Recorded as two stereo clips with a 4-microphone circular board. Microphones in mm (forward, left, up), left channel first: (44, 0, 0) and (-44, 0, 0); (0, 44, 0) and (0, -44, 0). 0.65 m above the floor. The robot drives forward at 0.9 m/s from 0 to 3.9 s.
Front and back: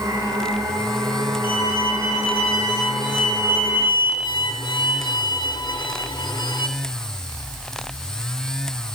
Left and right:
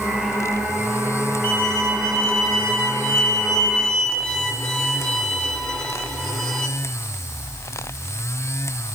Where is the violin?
5° left, 4 m; by 6.7 s 10° left, 1.9 m.